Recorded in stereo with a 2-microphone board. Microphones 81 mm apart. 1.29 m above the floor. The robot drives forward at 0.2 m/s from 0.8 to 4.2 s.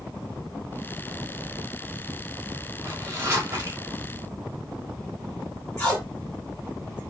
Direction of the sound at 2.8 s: 35° right (ahead or behind).